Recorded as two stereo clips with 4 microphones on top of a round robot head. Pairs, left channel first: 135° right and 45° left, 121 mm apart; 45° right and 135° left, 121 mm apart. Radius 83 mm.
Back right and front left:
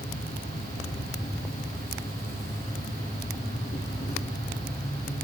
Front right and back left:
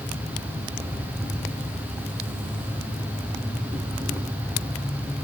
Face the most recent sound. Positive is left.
turn(degrees=-155)